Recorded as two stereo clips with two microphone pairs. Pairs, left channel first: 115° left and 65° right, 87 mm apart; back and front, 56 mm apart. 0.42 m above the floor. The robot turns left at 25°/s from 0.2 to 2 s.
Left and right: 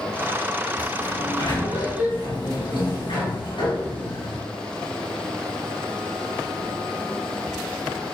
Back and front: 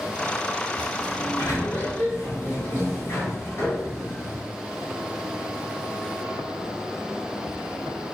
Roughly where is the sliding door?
Behind.